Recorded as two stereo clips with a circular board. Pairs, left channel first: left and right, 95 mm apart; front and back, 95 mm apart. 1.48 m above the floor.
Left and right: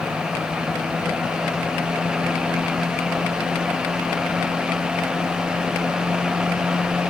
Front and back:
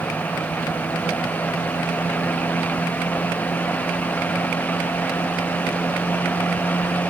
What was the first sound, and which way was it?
Only background noise.